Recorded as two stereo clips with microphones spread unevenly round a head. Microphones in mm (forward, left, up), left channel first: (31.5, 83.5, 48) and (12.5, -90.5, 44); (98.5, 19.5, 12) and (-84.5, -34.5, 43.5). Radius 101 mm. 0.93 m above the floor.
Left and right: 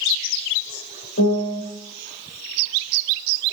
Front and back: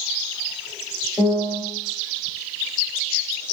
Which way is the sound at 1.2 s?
115° left.